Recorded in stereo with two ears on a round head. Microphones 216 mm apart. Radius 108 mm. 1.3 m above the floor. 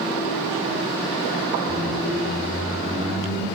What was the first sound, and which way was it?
A squeak, 20° right (ahead or behind).